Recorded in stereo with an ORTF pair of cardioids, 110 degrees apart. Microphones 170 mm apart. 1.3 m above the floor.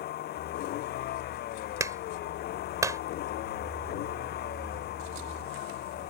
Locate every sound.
0.0 s a vehicle: 70° left
1.8 s a clap: 20° right